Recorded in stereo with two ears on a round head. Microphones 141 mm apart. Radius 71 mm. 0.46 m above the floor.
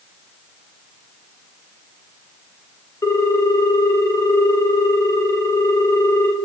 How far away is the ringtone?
About 0.9 m.